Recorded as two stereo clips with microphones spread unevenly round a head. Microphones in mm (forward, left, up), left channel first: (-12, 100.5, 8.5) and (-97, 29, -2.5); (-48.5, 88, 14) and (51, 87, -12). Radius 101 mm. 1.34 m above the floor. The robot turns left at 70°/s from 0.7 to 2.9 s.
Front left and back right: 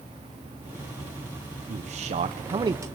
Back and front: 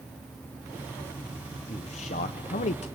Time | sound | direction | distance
1.7 | a man speaking | 120° right | 0.7 m